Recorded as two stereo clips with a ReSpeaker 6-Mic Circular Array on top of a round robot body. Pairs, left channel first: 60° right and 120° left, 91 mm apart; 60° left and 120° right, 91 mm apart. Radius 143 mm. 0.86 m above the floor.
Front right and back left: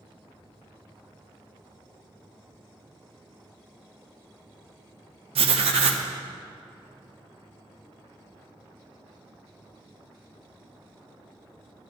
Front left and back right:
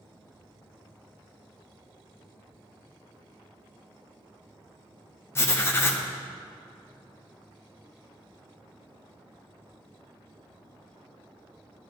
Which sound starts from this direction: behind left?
Writing, at 5.3 s.